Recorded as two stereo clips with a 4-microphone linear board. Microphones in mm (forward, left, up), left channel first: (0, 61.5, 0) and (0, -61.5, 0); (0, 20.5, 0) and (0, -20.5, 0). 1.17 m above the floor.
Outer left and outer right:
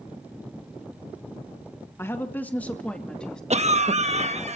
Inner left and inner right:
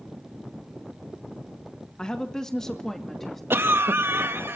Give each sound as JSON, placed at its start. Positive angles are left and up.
{"t": 2.0, "sound": "a woman speaking", "side_deg": 20, "distance_m": 1.5}
{"t": 3.5, "sound": "a cough", "side_deg": -65, "distance_m": 1.2}